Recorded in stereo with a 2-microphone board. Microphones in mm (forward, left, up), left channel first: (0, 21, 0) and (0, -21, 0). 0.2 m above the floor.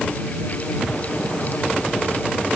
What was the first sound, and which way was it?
Only background noise.